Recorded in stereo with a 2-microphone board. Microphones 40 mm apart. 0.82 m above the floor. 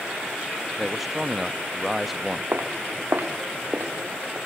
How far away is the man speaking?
About 0.7 m.